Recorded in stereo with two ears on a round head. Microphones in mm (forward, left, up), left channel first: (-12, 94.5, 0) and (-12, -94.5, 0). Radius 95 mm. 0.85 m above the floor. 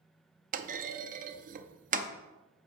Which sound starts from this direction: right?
A clunk, at 0.5 s.